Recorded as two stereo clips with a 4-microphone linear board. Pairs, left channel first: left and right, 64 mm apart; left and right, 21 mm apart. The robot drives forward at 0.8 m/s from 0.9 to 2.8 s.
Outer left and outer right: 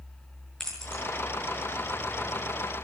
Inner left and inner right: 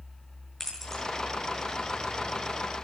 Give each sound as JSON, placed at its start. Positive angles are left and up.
{"t": 0.6, "sound": "keys jangling", "side_deg": 10, "distance_m": 7.5}